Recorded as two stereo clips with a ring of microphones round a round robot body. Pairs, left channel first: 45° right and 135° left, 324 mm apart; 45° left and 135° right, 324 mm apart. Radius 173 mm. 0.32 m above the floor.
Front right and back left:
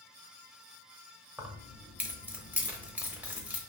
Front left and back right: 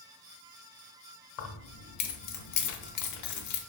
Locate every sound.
1.4 s keys jangling: 50° left, 0.9 m